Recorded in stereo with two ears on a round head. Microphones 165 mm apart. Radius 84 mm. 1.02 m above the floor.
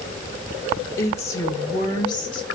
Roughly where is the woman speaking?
Centre.